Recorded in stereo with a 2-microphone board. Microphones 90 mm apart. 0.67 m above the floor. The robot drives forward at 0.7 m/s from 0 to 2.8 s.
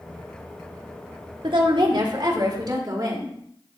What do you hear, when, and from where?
1.4 s a woman speaking: 65° right (ahead or behind), 1.3 m; by 3.4 s 45° right (ahead or behind), 1.7 m